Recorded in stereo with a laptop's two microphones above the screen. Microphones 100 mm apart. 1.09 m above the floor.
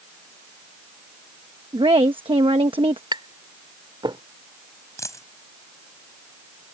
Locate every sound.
1.7 s a woman speaking: 65° right (ahead or behind)
3.1 s tapping: 50° right (ahead or behind)
5.0 s a dropped coin: 30° left (ahead or behind)